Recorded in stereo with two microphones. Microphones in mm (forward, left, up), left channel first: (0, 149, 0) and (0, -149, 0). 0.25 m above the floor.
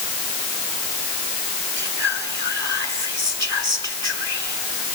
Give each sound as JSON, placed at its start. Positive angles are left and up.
{"t": 1.8, "sound": "whispering", "side_deg": -40, "distance_m": 2.5}